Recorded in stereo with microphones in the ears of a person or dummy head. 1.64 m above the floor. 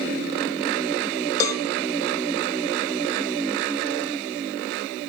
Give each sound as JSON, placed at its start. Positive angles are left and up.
{"t": 1.4, "sound": "a cowbell", "side_deg": 20, "distance_m": 2.0}